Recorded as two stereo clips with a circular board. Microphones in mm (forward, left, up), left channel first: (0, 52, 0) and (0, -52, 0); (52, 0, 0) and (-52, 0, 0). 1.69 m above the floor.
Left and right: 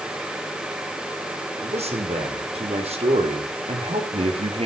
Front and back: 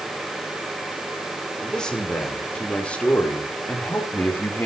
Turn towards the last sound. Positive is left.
turn(degrees=-70)